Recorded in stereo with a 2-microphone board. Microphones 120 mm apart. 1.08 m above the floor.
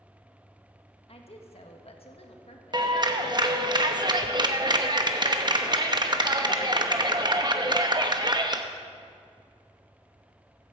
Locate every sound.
1.1 s a woman speaking: 55° left (ahead or behind), 1.6 m
2.7 s a clap: 35° right (ahead or behind), 0.9 m